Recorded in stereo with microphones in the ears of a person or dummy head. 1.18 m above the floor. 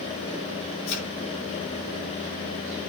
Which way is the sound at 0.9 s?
65° left (ahead or behind).